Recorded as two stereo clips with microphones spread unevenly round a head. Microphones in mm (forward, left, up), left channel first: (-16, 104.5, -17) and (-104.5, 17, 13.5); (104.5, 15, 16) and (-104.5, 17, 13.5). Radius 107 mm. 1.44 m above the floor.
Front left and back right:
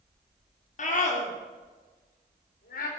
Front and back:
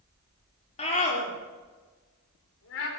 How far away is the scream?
About 3 m.